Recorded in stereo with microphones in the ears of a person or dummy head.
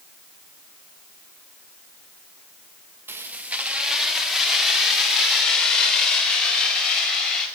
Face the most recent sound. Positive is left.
turn(degrees=0)  # may be behind; listen again after turning